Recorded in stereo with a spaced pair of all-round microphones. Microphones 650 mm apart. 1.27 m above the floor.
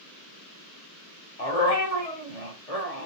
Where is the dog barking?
60° left (ahead or behind), 1.8 m.